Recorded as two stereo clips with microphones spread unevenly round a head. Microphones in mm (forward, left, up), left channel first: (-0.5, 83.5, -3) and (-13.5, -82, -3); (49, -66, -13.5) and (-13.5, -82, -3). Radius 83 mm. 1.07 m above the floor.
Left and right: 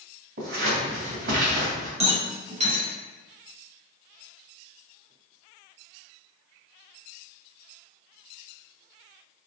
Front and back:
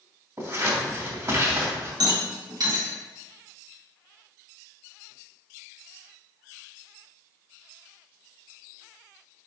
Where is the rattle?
150° right, 2 m.